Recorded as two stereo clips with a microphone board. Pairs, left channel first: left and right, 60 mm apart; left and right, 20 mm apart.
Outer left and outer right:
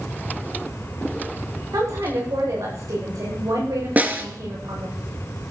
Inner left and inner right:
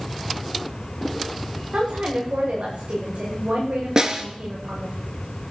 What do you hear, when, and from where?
1.7 s a woman speaking: 80° right, 9 m
4.0 s a snare drum: 30° right (ahead or behind), 2 m